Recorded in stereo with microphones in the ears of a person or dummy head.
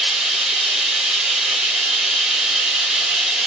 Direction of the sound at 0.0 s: Centre (ahead or behind).